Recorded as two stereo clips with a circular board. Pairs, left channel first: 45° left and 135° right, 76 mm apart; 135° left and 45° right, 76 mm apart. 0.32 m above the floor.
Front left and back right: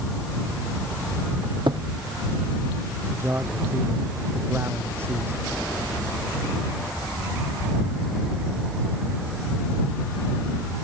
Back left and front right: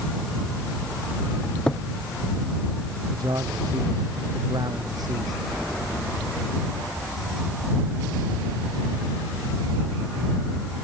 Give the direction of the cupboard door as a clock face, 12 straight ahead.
5 o'clock.